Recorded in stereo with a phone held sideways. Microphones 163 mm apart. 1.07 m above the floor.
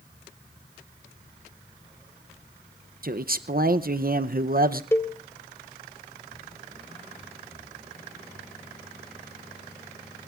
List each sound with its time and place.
3.0 s a man speaking: 60° right (ahead or behind), 0.6 m
4.9 s a cowbell: 15° left (ahead or behind), 1.1 m